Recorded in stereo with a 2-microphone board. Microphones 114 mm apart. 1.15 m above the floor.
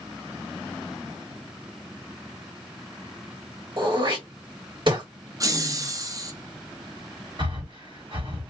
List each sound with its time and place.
3.8 s throat clearing: 50° right (ahead or behind), 1.6 m
5.4 s laughter: 35° right (ahead or behind), 0.8 m
7.4 s breathing: 50° right (ahead or behind), 1.7 m